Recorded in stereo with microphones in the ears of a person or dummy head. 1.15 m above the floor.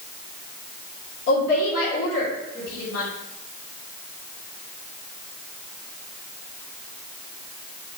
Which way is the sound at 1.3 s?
65° left (ahead or behind).